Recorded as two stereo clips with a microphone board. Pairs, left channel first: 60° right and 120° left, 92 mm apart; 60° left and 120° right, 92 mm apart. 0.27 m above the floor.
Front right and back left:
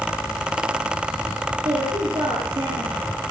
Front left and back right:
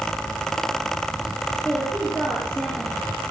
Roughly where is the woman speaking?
Behind left.